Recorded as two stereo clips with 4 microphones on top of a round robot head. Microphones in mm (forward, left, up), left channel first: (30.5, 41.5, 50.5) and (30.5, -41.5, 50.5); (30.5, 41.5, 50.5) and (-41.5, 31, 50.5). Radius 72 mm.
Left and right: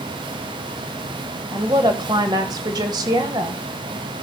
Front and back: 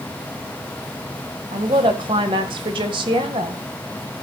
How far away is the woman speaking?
About 1.6 m.